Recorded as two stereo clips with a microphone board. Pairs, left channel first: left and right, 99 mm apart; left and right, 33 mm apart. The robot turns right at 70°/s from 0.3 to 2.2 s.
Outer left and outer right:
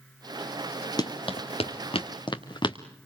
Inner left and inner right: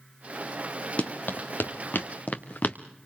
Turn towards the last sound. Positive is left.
turn(degrees=50)  # may be behind; listen again after turning